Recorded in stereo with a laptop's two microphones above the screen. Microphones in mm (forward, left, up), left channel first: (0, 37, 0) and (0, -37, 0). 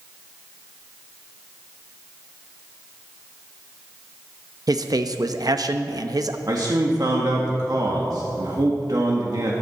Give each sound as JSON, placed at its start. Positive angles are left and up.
{"t": 4.7, "sound": "a man speaking", "side_deg": -60, "distance_m": 0.9}
{"t": 6.5, "sound": "a man speaking", "side_deg": -60, "distance_m": 1.8}